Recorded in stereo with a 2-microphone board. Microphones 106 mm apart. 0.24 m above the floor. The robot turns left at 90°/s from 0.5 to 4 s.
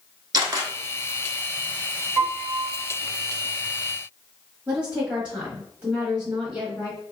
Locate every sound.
0.3 s a camera shutter: 40° right (ahead or behind), 0.9 m; by 0.7 s 25° right (ahead or behind), 0.9 m
2.2 s a piano: centre (ahead or behind), 1.4 m; by 2.8 s 20° right (ahead or behind), 1.4 m
4.7 s a woman speaking: 10° right (ahead or behind), 1.0 m